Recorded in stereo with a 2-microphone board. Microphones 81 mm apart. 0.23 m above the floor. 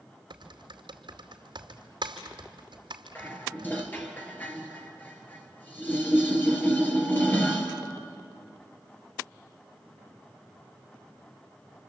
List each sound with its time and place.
0.3 s typing on a keyboard: 80° right, 2.5 m
3.1 s dishes clattering: 20° left (ahead or behind), 2.5 m